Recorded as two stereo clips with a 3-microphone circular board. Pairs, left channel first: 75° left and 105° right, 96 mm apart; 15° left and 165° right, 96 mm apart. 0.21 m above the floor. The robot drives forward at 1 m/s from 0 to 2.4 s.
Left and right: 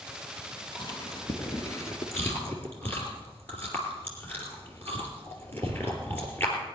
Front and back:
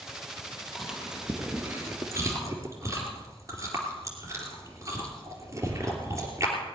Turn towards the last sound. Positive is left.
turn(degrees=140)